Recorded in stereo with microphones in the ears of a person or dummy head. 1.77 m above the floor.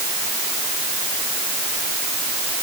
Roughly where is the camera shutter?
No camera shutter in this recording.